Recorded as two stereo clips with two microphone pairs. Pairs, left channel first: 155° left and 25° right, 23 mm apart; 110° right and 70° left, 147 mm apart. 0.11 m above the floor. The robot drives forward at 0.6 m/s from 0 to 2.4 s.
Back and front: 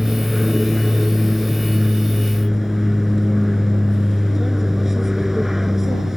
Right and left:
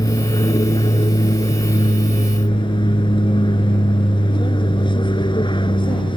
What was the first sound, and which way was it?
An aircraft, 80° right.